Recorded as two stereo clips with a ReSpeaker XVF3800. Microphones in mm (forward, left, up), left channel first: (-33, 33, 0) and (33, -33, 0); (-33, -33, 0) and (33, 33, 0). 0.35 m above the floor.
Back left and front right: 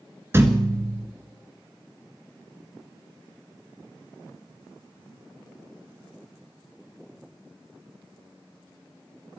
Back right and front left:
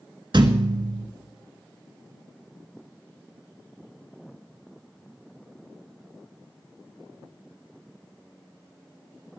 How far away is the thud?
About 1.6 m.